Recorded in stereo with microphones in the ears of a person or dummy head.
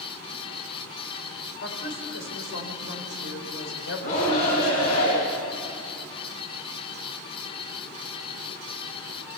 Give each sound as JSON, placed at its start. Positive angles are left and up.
{"t": 1.6, "sound": "a woman speaking", "side_deg": 80, "distance_m": 5.0}
{"t": 4.0, "sound": "a shout", "side_deg": 40, "distance_m": 8.5}